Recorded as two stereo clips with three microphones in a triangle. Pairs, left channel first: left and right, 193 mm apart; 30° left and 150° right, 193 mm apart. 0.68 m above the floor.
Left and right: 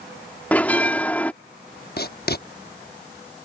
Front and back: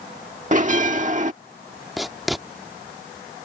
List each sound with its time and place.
0.5 s a bell: 170° left
2.0 s writing: 120° left